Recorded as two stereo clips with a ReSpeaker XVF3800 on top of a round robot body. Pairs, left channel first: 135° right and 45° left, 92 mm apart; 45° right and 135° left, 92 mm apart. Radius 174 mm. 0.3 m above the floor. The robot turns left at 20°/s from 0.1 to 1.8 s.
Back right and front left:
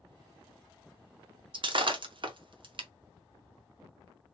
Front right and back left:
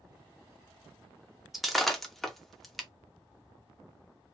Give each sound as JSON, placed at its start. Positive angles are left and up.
{"t": 1.5, "sound": "breaking glass", "azimuth_deg": 50, "distance_m": 1.0}